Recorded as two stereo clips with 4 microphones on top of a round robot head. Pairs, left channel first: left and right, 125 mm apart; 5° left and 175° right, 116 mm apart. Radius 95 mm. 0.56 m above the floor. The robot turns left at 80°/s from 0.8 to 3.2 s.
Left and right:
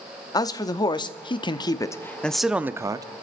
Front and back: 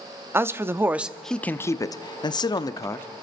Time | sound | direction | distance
0.3 | a man speaking | 125° left | 0.8 m